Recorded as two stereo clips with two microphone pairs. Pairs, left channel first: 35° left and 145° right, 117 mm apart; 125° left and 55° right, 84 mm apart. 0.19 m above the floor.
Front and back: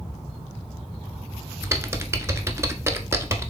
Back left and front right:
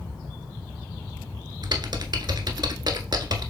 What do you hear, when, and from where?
1.6 s typing on a keyboard: 85° right, 0.6 m